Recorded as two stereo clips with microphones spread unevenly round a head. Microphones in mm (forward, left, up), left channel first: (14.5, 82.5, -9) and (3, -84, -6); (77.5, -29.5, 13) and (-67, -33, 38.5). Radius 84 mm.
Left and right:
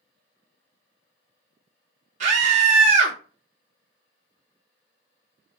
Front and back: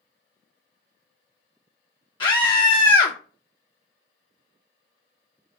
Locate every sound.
2.2 s a scream: 50° right, 0.5 m